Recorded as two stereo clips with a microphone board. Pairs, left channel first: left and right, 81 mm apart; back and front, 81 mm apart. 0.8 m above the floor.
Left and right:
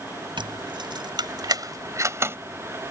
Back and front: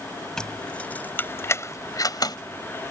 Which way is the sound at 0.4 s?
100° right.